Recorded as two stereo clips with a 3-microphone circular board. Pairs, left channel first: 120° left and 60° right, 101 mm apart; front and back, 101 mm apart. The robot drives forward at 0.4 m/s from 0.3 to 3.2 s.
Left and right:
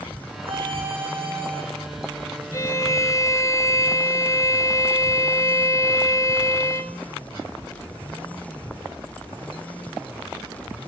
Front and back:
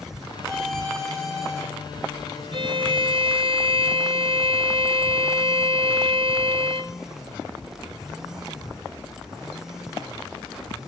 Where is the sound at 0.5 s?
85° right, 8.5 m; by 1.6 s 90° right, 8.5 m.